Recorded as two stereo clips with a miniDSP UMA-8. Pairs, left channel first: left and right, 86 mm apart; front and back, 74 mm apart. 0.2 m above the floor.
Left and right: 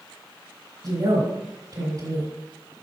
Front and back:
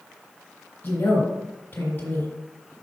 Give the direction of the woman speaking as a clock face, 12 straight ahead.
2 o'clock.